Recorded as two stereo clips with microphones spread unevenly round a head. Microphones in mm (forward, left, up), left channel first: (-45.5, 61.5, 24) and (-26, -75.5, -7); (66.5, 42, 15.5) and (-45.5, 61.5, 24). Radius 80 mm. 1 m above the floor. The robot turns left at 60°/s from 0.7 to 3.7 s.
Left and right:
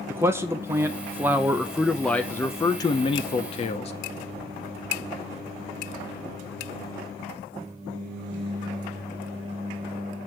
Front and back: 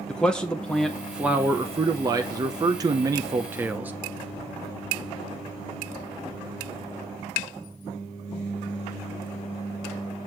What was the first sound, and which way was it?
A man speaking, 75° right.